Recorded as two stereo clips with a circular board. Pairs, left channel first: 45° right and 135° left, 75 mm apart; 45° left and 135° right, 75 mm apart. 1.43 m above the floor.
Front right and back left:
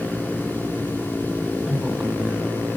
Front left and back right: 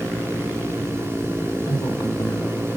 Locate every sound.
1.7 s a woman speaking: 50° left, 3.5 m; by 2.8 s 70° left, 3.5 m